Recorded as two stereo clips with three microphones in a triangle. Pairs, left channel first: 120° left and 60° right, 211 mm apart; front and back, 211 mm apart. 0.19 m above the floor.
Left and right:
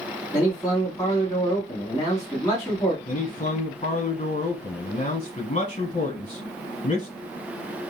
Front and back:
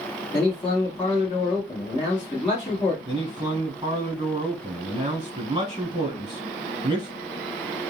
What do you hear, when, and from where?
0.3 s a man speaking: 50° left, 1.5 m
3.0 s a man speaking: 135° left, 1.3 m